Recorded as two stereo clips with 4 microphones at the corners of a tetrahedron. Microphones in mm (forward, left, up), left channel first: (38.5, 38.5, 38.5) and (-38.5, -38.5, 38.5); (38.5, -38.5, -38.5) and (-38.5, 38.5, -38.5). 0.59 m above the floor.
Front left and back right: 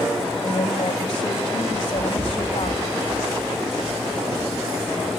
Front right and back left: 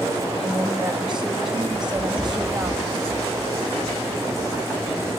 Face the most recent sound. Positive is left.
turn(degrees=-120)